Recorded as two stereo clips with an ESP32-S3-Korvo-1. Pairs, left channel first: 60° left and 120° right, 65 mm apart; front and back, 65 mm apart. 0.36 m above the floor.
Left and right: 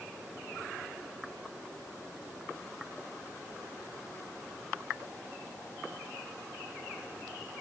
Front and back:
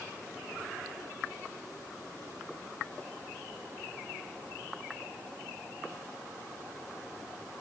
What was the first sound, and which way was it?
Only background noise.